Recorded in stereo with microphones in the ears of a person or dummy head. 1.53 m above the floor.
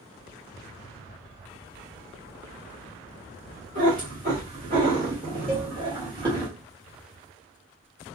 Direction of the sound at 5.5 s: 5° right (ahead or behind).